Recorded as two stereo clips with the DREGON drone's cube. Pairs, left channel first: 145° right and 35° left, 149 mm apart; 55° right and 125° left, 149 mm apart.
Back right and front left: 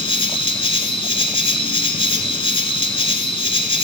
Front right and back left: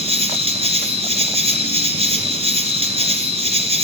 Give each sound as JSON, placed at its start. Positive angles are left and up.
{"t": 0.0, "sound": "an insect", "azimuth_deg": 165, "distance_m": 1.1}